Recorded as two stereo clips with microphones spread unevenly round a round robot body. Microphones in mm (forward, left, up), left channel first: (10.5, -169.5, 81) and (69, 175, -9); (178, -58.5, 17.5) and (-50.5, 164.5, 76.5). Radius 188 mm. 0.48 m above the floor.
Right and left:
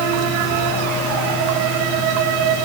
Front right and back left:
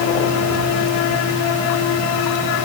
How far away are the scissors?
I don't hear scissors.